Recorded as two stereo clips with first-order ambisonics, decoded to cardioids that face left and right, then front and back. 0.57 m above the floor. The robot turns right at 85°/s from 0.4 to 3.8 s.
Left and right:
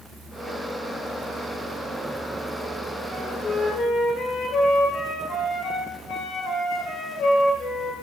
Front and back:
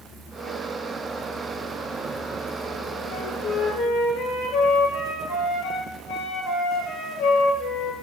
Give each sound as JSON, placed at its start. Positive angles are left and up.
{"t": 3.1, "sound": "a flute", "azimuth_deg": -20, "distance_m": 4.5}